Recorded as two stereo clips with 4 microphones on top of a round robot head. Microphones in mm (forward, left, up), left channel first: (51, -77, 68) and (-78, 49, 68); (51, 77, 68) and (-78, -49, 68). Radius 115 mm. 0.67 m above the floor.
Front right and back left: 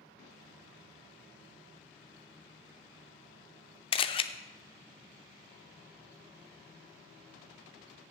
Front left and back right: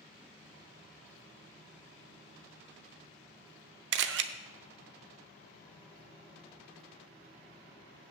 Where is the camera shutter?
105° right, 0.5 m.